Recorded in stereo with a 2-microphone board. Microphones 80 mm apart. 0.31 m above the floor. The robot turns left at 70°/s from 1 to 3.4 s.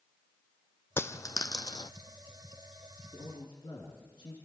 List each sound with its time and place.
1.0 s a dropped coin: 30° left (ahead or behind), 0.6 m; by 1.9 s 60° left (ahead or behind), 0.6 m
3.1 s a man speaking: 65° left (ahead or behind), 4 m; by 4.3 s 75° left (ahead or behind), 4 m